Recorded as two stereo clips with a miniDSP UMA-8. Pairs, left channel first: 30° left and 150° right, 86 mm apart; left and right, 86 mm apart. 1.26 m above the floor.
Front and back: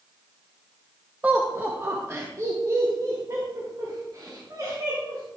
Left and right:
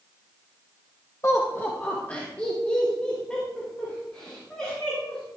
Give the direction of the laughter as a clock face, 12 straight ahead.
7 o'clock.